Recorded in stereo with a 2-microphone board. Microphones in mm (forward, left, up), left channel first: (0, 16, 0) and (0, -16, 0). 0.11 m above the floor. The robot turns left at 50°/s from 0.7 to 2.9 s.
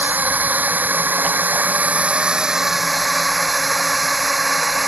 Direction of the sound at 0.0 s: 60° right (ahead or behind).